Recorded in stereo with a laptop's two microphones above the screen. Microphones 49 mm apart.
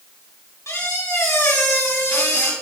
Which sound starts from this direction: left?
A squeak, at 0.7 s.